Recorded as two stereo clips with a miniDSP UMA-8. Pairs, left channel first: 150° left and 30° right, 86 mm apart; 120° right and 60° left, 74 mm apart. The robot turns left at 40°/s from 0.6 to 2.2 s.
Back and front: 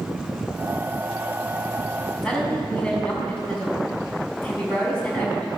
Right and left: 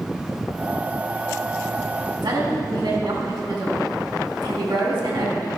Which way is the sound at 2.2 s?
70° left.